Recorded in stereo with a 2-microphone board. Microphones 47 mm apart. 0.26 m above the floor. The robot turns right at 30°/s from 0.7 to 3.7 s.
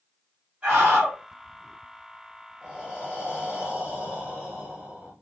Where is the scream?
25° right (ahead or behind), 1.5 m; by 1.2 s 30° right (ahead or behind), 1.5 m.